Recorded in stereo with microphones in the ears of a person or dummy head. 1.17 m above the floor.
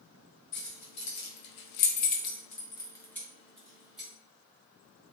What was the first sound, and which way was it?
Keys jangling, 65° left (ahead or behind).